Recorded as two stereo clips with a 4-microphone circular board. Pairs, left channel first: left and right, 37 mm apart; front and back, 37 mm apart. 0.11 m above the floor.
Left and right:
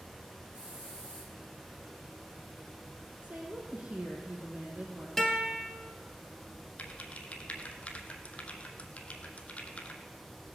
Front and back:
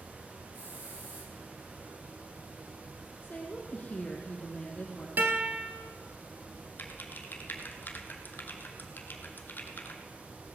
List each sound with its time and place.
0.5 s a hiss: 160° right, 7.5 m
3.2 s a woman speaking: 45° right, 4 m
5.2 s a guitar: 170° left, 1.8 m
6.8 s typing on a keyboard: 35° left, 1.3 m